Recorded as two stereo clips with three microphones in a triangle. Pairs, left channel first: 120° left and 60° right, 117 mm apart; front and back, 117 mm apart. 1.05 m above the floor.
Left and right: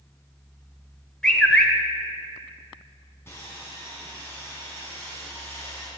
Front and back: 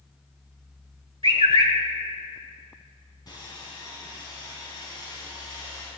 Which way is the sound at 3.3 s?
50° left.